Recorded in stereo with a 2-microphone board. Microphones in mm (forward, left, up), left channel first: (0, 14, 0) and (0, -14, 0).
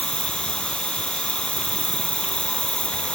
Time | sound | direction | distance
0.0 | an insect | 35° left (ahead or behind) | ?